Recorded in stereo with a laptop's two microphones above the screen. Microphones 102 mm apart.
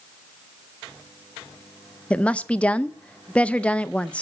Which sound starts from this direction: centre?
A woman speaking, at 2.1 s.